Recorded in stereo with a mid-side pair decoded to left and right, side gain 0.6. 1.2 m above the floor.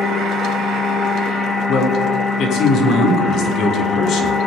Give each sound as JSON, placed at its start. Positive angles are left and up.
{"t": 0.0, "sound": "a machine running", "azimuth_deg": 40, "distance_m": 1.9}
{"t": 1.7, "sound": "a man speaking", "azimuth_deg": 60, "distance_m": 3.0}